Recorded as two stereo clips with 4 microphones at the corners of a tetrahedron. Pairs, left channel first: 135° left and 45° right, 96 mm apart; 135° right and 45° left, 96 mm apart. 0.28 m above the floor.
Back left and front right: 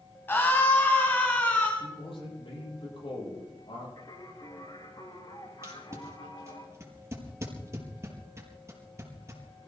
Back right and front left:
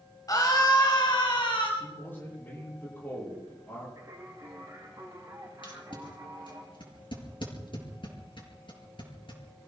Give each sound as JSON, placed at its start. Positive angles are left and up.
{"t": 0.3, "sound": "a scream", "azimuth_deg": -170, "distance_m": 1.4}
{"t": 1.8, "sound": "a man speaking", "azimuth_deg": 155, "distance_m": 9.5}
{"t": 4.0, "sound": "singing", "azimuth_deg": 100, "distance_m": 9.0}
{"t": 5.6, "sound": "tape being pulled", "azimuth_deg": -105, "distance_m": 4.5}